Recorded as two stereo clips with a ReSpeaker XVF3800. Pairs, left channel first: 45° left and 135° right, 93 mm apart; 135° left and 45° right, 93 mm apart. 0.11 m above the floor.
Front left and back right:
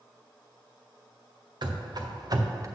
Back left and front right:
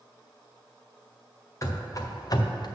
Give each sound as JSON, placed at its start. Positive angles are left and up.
{"t": 1.6, "sound": "running footsteps", "azimuth_deg": -170, "distance_m": 1.4}